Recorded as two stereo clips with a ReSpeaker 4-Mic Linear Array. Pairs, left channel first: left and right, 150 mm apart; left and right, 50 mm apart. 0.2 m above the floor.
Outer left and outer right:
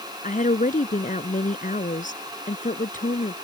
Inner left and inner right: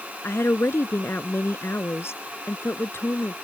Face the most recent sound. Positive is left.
turn(degrees=60)  # may be behind; listen again after turning